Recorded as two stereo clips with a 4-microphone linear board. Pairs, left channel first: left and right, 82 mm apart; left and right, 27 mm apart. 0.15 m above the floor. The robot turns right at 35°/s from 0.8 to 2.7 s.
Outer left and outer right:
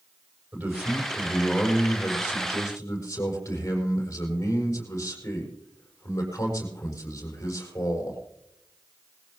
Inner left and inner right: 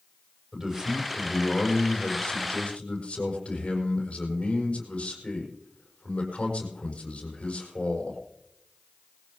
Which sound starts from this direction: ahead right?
A man speaking, at 0.5 s.